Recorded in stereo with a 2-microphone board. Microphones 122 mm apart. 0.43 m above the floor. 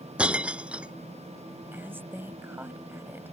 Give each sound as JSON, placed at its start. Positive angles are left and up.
{"t": 0.2, "sound": "breaking glass", "side_deg": -10}
{"t": 1.7, "sound": "a woman speaking", "side_deg": -15}